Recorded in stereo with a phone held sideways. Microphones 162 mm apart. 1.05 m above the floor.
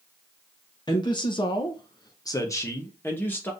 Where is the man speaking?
25° left (ahead or behind), 0.8 m; by 3.5 s 10° left (ahead or behind), 1.4 m.